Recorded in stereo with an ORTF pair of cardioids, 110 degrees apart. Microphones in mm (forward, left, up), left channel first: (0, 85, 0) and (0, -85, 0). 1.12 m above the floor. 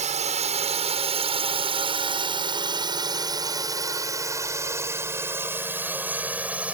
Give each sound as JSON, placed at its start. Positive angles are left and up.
{"t": 0.0, "sound": "a drone", "azimuth_deg": -45}